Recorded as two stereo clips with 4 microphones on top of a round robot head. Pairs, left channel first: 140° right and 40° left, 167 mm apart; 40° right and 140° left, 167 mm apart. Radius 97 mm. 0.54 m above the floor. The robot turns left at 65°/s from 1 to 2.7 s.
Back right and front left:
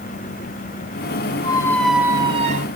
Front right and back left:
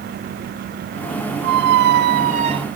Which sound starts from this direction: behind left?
A squeak, at 1.4 s.